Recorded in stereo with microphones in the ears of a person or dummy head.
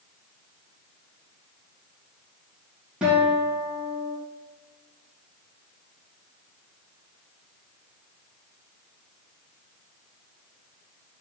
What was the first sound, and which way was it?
A guitar, 5° right (ahead or behind).